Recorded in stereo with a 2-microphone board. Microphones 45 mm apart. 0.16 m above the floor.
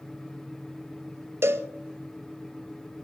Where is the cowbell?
70° right (ahead or behind), 0.9 m.